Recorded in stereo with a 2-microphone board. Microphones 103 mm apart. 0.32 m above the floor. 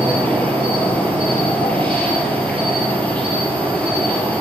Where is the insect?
15° left (ahead or behind), 2 m.